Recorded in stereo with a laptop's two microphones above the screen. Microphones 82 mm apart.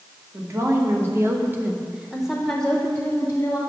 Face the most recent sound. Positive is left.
turn(degrees=30)  # may be behind; listen again after turning